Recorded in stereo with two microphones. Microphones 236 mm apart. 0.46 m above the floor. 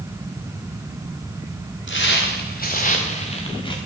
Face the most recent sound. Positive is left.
turn(degrees=20)  # may be behind; listen again after turning